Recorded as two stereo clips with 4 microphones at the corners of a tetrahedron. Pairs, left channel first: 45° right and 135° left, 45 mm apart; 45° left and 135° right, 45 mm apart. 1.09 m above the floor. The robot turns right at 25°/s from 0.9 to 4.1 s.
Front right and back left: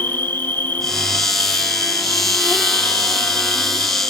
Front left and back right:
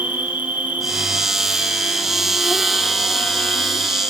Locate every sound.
0.0 s an insect: 85° right, 1.2 m; by 4.1 s 5° right, 1.2 m